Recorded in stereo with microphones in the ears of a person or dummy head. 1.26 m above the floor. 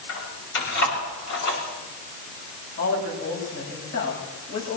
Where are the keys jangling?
65° left (ahead or behind), 6 m.